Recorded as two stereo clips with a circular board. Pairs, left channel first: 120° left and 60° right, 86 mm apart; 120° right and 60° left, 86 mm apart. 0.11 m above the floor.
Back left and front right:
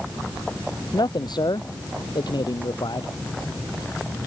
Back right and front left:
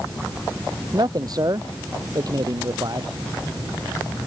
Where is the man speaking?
95° left.